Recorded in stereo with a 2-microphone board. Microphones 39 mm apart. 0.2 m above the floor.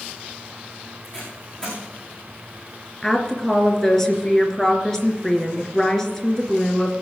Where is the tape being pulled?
20° left (ahead or behind), 7 m.